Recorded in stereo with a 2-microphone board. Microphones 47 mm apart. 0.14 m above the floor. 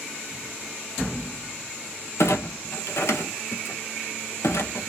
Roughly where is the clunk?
Left.